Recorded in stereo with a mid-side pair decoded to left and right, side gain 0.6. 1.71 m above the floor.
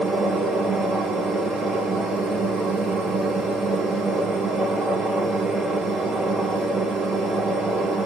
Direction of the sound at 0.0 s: 30° right.